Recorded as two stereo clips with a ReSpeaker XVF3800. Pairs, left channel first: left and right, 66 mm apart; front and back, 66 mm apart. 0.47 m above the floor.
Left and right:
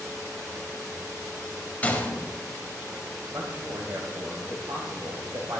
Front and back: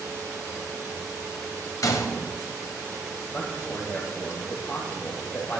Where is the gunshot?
25° left, 1.6 m.